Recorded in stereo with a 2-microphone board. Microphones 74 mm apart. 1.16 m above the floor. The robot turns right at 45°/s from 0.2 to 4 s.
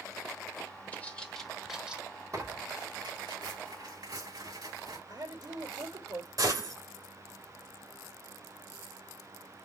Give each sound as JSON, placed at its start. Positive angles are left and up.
{"t": 0.9, "sound": "a bird", "side_deg": 20, "distance_m": 1.2}
{"t": 2.3, "sound": "tearing paper", "side_deg": -40, "distance_m": 3.0}
{"t": 5.1, "sound": "a woman speaking", "side_deg": -60, "distance_m": 3.5}
{"t": 6.4, "sound": "a gunshot", "side_deg": -55, "distance_m": 2.5}